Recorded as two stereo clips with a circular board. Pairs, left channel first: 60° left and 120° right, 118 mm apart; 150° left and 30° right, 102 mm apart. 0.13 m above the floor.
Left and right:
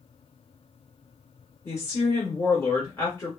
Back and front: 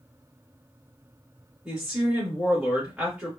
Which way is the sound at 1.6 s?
30° left.